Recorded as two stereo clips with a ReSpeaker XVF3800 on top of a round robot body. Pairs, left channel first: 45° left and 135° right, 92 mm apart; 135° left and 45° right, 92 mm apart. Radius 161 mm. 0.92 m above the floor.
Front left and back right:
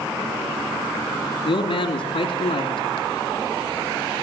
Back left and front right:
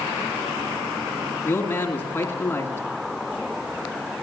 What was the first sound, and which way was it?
A man speaking, 70° left.